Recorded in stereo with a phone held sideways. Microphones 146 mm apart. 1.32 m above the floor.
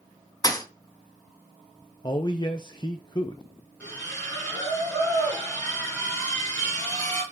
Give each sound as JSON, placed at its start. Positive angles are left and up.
{"t": 0.4, "sound": "a thud", "side_deg": 25, "distance_m": 0.7}
{"t": 2.0, "sound": "a man speaking", "side_deg": 30, "distance_m": 0.5}
{"t": 3.8, "sound": "a splash", "side_deg": 10, "distance_m": 4.5}